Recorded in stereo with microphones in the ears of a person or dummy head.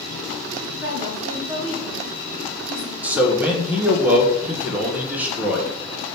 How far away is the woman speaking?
About 2.5 m.